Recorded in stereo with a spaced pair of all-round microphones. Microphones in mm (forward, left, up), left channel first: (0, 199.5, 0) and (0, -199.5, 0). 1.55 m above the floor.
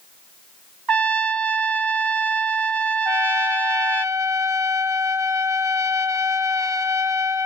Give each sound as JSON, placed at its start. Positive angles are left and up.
{"t": 0.9, "sound": "a trumpet", "side_deg": -65, "distance_m": 0.7}
{"t": 3.0, "sound": "a trumpet", "side_deg": 85, "distance_m": 0.9}